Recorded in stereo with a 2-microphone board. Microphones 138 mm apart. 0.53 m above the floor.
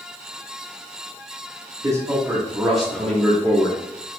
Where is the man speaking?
25° right (ahead or behind), 1.4 m; by 3.8 s 25° left (ahead or behind), 1.4 m.